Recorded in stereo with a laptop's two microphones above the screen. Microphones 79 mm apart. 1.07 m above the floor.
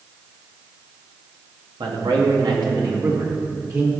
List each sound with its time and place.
1.8 s a man speaking: 80° right, 1.7 m; by 3.9 s 40° right (ahead or behind), 2.5 m